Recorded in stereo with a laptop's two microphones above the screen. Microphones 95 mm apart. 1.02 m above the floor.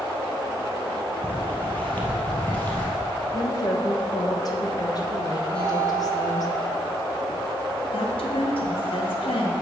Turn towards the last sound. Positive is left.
turn(degrees=70)  # may be behind; listen again after turning